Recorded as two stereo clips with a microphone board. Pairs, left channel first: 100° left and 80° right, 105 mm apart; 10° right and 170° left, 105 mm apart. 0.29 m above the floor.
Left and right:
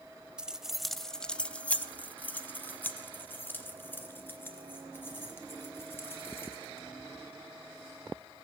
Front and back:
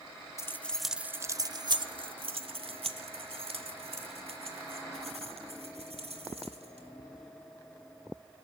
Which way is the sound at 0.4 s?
10° right.